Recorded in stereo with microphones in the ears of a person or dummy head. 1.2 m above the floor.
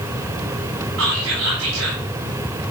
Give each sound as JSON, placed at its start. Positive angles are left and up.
{"t": 1.0, "sound": "whispering", "side_deg": -85, "distance_m": 7.5}